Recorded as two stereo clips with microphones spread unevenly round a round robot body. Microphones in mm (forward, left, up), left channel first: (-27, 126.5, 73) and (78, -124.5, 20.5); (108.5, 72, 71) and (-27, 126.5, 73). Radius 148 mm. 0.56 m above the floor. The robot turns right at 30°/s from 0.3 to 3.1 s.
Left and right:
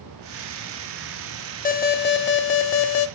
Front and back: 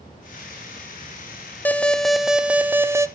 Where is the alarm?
55° left, 0.8 m; by 3.1 s 95° left, 0.8 m.